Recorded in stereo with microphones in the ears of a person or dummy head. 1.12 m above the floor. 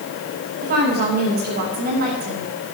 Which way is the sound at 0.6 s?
45° right (ahead or behind).